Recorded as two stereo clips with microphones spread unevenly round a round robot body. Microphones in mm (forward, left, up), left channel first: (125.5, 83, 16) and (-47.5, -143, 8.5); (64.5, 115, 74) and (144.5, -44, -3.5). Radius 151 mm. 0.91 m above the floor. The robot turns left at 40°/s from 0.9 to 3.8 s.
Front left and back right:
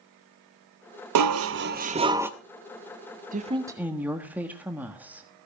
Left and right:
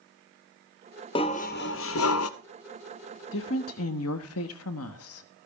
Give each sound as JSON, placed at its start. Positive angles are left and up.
{"t": 1.1, "sound": "dishes clattering", "azimuth_deg": -165, "distance_m": 0.5}
{"t": 3.3, "sound": "a woman speaking", "azimuth_deg": 170, "distance_m": 1.3}